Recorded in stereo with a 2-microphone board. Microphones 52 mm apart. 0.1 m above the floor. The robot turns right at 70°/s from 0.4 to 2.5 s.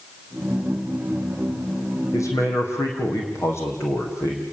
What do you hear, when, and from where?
2.1 s a man speaking: 75° left (ahead or behind), 5.5 m; by 4.4 s 55° left (ahead or behind), 5.5 m